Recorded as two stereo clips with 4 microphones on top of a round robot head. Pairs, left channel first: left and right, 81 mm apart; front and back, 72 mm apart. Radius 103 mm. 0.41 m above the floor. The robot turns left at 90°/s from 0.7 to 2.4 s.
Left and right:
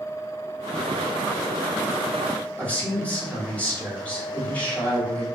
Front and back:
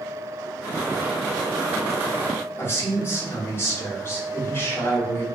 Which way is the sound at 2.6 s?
25° left.